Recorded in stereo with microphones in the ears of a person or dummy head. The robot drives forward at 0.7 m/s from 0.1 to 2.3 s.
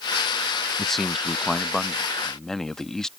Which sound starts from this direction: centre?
A man speaking, at 0.8 s.